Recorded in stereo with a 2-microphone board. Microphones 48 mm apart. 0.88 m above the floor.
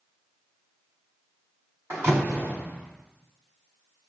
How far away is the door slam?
About 4 m.